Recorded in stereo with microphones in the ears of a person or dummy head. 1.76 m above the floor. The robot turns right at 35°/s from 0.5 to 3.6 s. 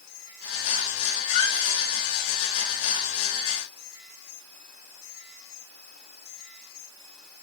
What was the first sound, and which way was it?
A squeak, 45° left (ahead or behind).